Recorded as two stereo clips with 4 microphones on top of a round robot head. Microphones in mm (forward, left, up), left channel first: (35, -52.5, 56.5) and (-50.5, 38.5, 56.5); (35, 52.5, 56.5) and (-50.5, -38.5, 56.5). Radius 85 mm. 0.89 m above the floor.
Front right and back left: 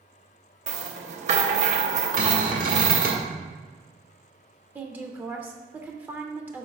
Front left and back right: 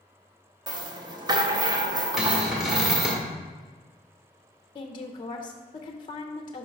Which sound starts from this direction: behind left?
A cupboard door, at 2.2 s.